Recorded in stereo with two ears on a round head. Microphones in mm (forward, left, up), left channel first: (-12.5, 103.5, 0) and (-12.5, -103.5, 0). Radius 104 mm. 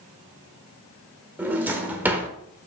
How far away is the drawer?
About 1.2 m.